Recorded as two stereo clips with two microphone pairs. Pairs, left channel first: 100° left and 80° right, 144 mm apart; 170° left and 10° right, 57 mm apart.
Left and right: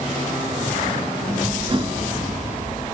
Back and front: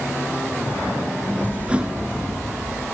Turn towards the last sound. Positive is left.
turn(degrees=-70)